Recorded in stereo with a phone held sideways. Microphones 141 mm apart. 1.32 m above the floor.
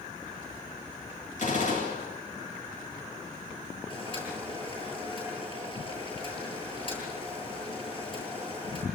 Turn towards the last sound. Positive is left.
turn(degrees=35)  # may be behind; listen again after turning